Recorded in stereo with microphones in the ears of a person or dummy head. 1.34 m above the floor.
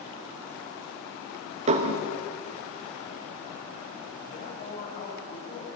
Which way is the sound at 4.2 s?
55° left (ahead or behind).